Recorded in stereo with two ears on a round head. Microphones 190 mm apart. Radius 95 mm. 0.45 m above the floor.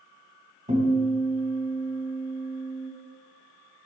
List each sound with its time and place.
0.7 s a guitar: 35° right (ahead or behind), 2.5 m